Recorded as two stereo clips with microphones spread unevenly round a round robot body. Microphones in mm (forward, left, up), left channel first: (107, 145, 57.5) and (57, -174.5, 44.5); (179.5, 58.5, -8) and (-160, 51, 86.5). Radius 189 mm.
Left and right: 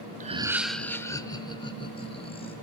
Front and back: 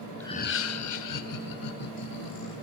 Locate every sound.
0.2 s laughter: 55° right, 0.7 m; by 2.5 s 10° left, 3.5 m